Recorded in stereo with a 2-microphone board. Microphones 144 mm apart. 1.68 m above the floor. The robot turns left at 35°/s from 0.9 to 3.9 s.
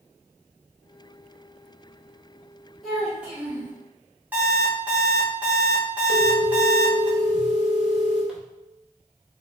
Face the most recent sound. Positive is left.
turn(degrees=-5)  # may be behind; listen again after turning